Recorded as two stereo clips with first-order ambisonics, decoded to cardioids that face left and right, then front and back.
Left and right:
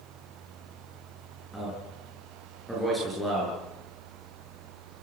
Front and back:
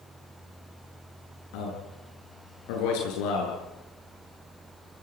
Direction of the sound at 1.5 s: Straight ahead.